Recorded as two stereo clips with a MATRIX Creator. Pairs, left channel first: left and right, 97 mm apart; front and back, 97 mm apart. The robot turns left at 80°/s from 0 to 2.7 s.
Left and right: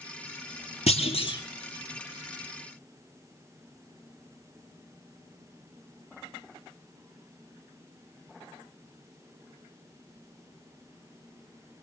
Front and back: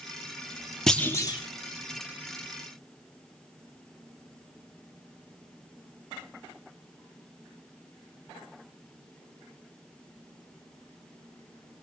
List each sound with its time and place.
0.9 s a clunk: 85° left, 2.5 m; by 1.4 s 45° left, 2.5 m